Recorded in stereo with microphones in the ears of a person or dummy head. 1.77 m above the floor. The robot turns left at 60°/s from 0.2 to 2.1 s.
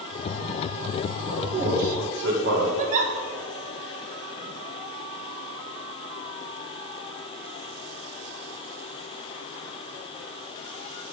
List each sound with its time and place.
1.3 s a man speaking: 10° right (ahead or behind), 2 m; by 2.7 s 60° right (ahead or behind), 2 m
2.8 s a giggle: 40° right (ahead or behind), 1.1 m